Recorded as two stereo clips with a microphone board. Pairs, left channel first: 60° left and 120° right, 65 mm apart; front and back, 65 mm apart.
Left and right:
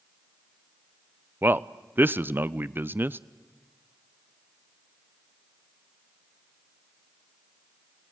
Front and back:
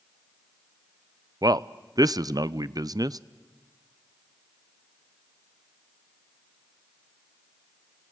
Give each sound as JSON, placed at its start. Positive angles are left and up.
{"t": 1.4, "sound": "a man speaking", "azimuth_deg": 180, "distance_m": 0.5}